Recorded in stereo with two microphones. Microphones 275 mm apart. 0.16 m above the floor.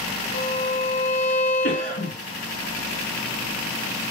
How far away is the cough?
About 2 m.